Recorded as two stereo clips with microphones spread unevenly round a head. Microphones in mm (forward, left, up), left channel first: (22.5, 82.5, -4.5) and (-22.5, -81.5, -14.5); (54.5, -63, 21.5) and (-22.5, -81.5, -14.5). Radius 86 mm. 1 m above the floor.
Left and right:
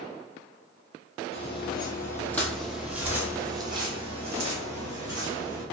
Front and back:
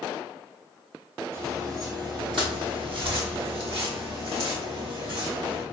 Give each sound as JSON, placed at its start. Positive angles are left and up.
{"t": 1.3, "sound": "footsteps", "azimuth_deg": 110, "distance_m": 1.4}